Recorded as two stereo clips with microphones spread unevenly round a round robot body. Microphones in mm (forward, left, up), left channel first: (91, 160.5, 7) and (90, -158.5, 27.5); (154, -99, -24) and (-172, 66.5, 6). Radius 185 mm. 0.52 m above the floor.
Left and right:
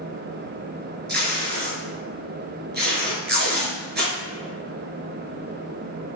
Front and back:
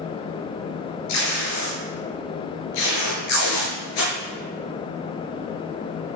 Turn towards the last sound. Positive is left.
turn(degrees=-30)